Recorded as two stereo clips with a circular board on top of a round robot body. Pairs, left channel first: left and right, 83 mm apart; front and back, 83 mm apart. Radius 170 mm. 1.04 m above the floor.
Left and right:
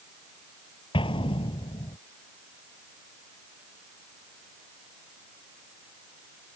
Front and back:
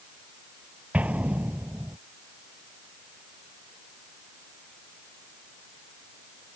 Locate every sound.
0.9 s an explosion: 105° left